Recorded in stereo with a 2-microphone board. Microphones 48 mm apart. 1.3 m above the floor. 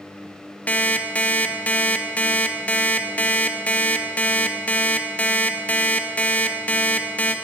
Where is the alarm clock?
30° left (ahead or behind), 0.6 m.